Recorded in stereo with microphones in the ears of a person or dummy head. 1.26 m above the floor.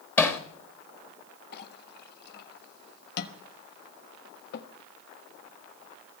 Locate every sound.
0.2 s hammering: 10° left (ahead or behind), 1.0 m
1.5 s a clink: 60° left (ahead or behind), 1.2 m